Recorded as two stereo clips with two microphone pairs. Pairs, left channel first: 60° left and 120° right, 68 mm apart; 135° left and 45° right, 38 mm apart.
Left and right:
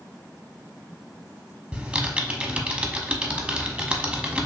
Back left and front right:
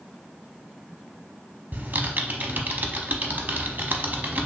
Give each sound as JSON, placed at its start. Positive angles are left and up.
{"t": 1.7, "sound": "typing on a keyboard", "azimuth_deg": -50, "distance_m": 0.8}